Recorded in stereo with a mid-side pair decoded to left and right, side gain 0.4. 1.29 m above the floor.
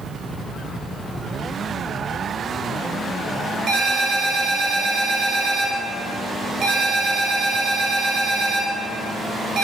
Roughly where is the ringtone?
Ahead right.